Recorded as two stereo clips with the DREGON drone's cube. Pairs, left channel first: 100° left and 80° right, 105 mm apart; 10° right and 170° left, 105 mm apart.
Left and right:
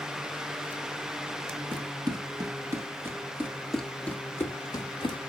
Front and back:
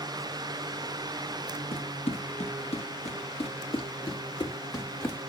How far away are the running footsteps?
About 1.6 m.